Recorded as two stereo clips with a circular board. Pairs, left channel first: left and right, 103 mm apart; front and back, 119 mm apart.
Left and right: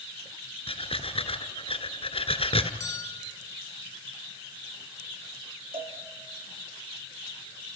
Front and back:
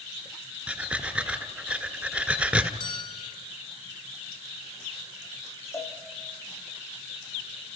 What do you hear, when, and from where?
0.7 s breathing: 100° left, 1.5 m
2.8 s a bell: 35° left, 1.3 m
5.7 s a cowbell: 65° right, 4 m